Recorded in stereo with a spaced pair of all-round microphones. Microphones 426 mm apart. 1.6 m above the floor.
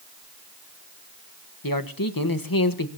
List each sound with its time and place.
1.6 s a man speaking: 50° left (ahead or behind), 1.3 m